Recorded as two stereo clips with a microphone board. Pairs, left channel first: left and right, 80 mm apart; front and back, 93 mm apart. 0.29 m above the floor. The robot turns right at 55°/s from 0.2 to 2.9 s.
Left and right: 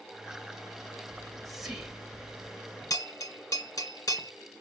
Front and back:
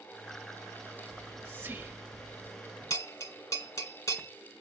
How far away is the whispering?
About 1.2 m.